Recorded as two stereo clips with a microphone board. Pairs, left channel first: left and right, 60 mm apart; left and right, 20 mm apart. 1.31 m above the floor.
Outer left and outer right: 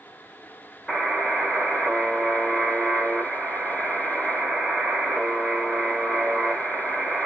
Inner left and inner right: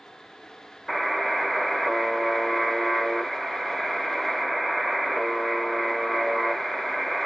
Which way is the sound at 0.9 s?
10° left (ahead or behind).